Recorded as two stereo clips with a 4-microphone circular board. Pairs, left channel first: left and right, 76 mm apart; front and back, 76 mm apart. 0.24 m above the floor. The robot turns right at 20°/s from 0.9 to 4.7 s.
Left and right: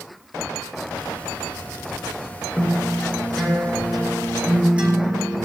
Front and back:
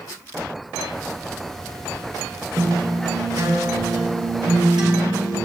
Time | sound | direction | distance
2.6 | a guitar | 155° left | 4.5 m